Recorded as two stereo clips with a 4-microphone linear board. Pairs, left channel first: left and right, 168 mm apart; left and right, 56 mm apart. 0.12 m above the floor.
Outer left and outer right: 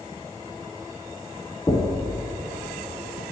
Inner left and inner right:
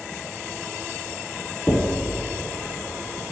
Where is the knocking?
15° left (ahead or behind), 0.7 m.